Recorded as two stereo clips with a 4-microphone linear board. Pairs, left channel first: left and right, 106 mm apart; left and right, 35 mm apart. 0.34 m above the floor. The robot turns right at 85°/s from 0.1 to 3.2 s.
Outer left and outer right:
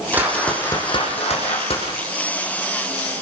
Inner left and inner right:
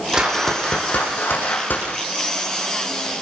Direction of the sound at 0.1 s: 20° right.